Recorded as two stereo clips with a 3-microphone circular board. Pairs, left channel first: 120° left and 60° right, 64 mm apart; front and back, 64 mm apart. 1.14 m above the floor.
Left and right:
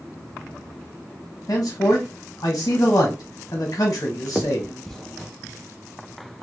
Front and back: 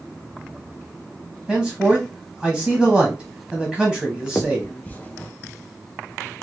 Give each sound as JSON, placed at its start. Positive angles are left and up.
{"t": 1.5, "sound": "a man speaking", "azimuth_deg": 90, "distance_m": 1.0}
{"t": 4.3, "sound": "a finger snap", "azimuth_deg": 35, "distance_m": 0.5}